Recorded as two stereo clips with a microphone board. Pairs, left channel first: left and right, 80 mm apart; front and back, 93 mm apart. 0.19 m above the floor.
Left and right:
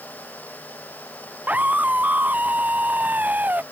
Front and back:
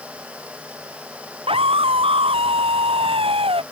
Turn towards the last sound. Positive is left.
turn(degrees=-160)